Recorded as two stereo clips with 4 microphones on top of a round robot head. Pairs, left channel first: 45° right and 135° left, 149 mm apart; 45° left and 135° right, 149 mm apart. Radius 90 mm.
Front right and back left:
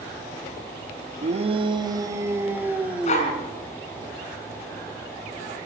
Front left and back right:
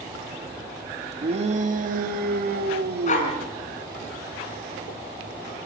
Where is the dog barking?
Straight ahead, 4.5 m.